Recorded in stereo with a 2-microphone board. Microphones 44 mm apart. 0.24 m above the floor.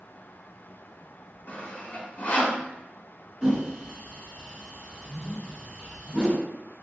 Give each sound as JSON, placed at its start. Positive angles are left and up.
{"t": 1.5, "sound": "sawing", "side_deg": 40, "distance_m": 0.8}
{"t": 3.4, "sound": "a whoosh", "side_deg": -15, "distance_m": 1.6}